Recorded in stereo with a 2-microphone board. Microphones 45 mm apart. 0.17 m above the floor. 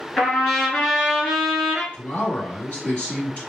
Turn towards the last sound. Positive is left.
turn(degrees=45)  # may be behind; listen again after turning